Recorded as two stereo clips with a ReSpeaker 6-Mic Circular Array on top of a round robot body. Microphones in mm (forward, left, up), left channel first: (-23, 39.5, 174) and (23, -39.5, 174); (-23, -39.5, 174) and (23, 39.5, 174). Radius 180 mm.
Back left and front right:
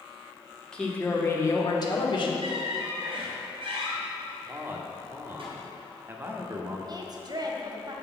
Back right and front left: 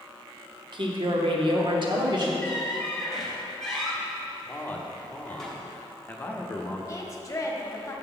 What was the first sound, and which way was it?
A woman speaking, 40° left.